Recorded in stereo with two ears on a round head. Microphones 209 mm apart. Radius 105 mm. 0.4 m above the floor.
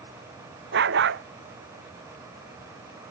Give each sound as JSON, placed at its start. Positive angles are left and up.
{"t": 0.7, "sound": "a dog barking", "side_deg": -55}